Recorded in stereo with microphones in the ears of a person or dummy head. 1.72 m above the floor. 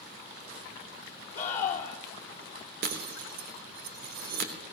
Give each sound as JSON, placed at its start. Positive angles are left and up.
{"t": 1.4, "sound": "a scream", "side_deg": 20, "distance_m": 2.5}
{"t": 2.8, "sound": "breaking glass", "side_deg": -60, "distance_m": 3.0}